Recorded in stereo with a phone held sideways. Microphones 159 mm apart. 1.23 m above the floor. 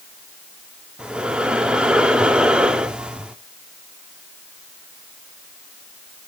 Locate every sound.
1.0 s breathing: 5° right (ahead or behind), 0.8 m